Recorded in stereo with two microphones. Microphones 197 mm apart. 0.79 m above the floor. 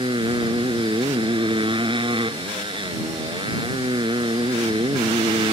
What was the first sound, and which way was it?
A motorcycle, 25° right (ahead or behind).